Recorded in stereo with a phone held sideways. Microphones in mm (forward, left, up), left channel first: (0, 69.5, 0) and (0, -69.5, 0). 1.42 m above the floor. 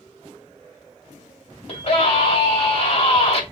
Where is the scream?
40° left (ahead or behind), 3.5 m.